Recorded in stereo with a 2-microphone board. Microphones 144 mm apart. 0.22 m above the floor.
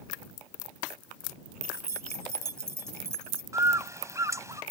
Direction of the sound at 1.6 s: 20° right (ahead or behind).